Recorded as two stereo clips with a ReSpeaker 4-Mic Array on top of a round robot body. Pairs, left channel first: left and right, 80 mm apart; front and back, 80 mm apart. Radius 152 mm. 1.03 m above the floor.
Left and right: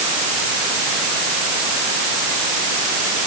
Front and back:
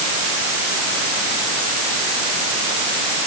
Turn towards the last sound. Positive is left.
No sound to turn to.